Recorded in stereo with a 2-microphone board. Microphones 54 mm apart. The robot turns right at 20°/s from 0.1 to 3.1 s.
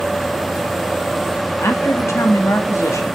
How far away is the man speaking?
About 2.5 m.